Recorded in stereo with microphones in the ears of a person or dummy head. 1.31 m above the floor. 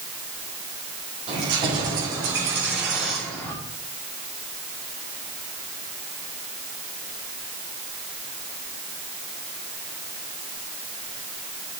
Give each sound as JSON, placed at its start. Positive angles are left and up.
{"t": 1.3, "sound": "keys jangling", "side_deg": -30, "distance_m": 3.5}